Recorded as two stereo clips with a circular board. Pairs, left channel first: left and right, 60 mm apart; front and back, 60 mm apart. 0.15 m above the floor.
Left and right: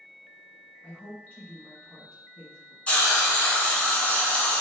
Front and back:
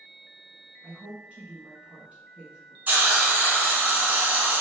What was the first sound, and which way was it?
A woman speaking, 135° left.